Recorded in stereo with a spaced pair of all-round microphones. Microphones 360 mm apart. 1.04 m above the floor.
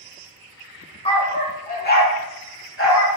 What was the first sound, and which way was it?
A dog barking, 15° left (ahead or behind).